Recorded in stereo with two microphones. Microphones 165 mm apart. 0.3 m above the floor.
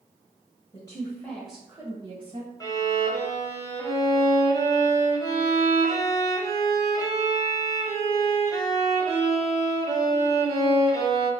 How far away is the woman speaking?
About 1.4 m.